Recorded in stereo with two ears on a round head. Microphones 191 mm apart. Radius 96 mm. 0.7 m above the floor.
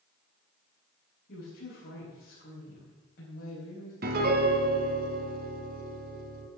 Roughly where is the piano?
Right.